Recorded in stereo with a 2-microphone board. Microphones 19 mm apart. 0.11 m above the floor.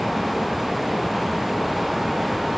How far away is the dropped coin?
No dropped coin in this recording.